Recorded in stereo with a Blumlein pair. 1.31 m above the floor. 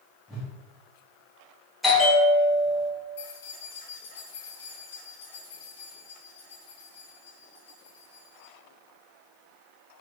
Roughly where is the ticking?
I don't hear ticking.